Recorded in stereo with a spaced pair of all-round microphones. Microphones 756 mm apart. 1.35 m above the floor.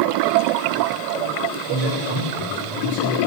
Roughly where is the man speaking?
Left.